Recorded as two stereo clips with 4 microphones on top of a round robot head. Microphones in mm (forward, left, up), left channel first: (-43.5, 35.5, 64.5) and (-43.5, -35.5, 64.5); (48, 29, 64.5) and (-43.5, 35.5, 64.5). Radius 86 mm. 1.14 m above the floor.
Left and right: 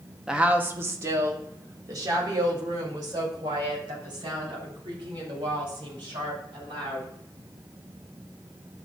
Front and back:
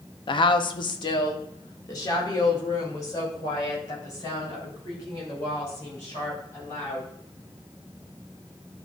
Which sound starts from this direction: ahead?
A woman speaking, at 0.3 s.